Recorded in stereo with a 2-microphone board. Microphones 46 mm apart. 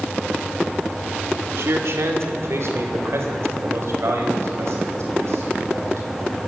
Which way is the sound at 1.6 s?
70° right (ahead or behind).